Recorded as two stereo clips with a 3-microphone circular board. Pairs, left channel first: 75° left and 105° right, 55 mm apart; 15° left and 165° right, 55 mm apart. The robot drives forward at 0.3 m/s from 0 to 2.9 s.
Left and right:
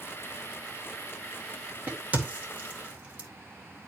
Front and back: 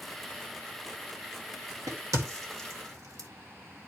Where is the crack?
165° right, 2.0 m; by 3.3 s 170° right, 2.5 m.